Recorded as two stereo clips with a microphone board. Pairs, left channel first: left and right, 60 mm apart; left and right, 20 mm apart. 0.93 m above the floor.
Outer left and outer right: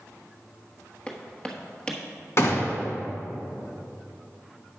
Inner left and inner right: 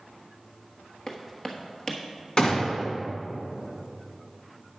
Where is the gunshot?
50° left (ahead or behind), 1.5 m.